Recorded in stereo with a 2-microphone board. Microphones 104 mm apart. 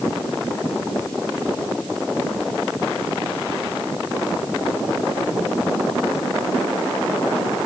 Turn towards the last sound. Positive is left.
No sound to turn to.